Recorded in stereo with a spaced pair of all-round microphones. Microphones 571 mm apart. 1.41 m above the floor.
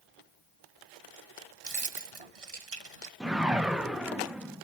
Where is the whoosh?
Centre (ahead or behind), 0.6 m.